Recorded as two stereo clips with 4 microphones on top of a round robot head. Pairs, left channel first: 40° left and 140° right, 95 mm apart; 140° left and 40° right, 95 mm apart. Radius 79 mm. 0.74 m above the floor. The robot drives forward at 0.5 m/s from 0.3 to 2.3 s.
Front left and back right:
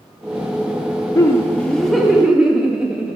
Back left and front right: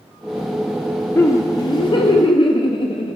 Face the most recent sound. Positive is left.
turn(degrees=140)